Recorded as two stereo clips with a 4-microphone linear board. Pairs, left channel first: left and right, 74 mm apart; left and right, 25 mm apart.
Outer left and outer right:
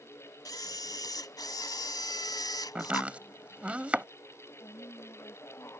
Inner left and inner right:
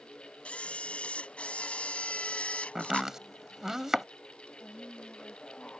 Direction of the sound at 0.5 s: 65° left (ahead or behind).